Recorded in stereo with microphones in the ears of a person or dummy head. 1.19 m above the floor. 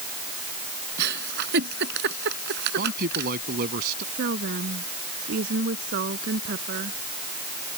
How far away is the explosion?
No explosion in this recording.